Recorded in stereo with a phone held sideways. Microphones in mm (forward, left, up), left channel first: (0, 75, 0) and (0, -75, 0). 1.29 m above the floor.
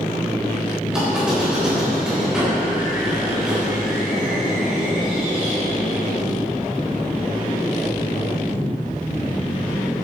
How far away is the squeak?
About 4.5 m.